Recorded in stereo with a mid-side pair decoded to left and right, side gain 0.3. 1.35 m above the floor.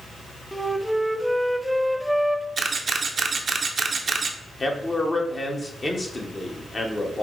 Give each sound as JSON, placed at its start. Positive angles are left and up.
{"t": 0.5, "sound": "a flute", "azimuth_deg": 0, "distance_m": 0.5}
{"t": 2.6, "sound": "a camera shutter", "azimuth_deg": -60, "distance_m": 0.6}
{"t": 4.6, "sound": "a man speaking", "azimuth_deg": 35, "distance_m": 1.2}